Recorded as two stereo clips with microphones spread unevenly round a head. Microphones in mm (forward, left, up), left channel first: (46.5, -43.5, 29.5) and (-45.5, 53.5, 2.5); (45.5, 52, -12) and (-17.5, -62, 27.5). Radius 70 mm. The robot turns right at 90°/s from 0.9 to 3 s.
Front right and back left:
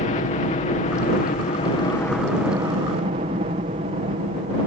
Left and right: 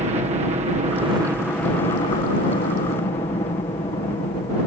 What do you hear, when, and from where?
0.0 s a helicopter: 75° right; by 4.7 s 115° left